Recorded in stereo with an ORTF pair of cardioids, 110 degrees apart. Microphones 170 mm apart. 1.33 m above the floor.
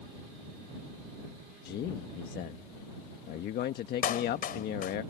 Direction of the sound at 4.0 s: 55° left.